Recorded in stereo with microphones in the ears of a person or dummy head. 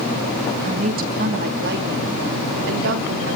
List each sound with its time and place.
0.6 s a woman speaking: 35° right (ahead or behind), 1.8 m; by 3.4 s 70° right (ahead or behind), 3.5 m